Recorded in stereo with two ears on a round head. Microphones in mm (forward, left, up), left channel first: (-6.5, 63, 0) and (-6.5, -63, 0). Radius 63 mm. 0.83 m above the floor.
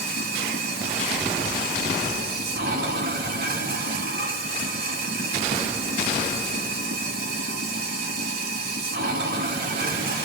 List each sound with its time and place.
0.0 s running water: 75° right (ahead or behind), 1.7 m